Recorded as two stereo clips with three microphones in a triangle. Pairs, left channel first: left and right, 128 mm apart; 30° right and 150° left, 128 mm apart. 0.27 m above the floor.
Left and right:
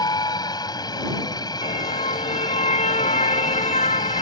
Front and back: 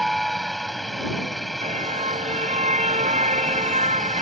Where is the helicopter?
60° left.